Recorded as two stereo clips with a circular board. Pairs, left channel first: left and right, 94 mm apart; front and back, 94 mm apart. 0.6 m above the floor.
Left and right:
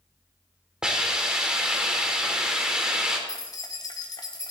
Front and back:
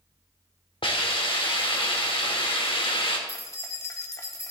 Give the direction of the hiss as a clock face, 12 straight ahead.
12 o'clock.